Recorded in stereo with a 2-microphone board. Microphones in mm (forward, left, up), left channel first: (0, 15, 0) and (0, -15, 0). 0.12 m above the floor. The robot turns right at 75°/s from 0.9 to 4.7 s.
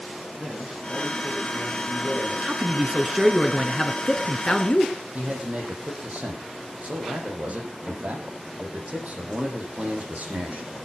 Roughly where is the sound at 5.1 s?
Right.